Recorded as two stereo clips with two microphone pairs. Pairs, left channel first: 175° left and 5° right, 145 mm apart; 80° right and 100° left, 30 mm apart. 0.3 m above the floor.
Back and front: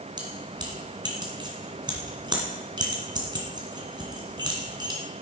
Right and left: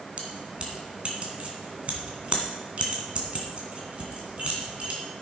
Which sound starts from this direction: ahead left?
Keys jangling, at 0.2 s.